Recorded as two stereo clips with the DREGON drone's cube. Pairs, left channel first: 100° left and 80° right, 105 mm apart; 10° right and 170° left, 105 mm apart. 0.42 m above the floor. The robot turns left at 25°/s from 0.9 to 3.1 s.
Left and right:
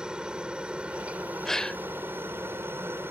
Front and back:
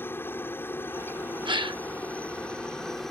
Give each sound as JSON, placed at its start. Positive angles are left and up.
{"t": 0.0, "sound": "a helicopter", "azimuth_deg": -15}
{"t": 1.4, "sound": "a gasp", "azimuth_deg": -175}